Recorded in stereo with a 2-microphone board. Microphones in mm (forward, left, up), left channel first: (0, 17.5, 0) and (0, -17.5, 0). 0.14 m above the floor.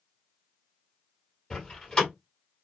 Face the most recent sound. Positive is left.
turn(degrees=25)  # may be behind; listen again after turning